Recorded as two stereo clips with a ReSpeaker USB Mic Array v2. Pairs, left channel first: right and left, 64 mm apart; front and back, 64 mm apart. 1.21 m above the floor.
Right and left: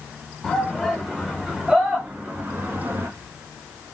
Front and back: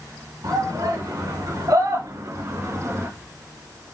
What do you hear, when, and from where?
0.4 s a shout: 175° right, 5 m; by 3.1 s 130° left, 2 m